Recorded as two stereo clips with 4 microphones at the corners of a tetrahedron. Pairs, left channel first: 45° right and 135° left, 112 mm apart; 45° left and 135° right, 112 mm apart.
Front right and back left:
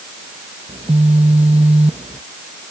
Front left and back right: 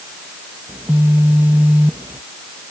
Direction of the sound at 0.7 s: 150° left.